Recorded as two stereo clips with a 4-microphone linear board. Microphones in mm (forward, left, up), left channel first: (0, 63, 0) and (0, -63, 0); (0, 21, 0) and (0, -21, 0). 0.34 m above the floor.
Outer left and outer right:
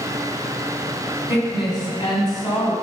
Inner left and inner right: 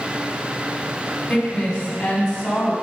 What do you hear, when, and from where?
1.3 s a woman speaking: 40° left (ahead or behind), 2.0 m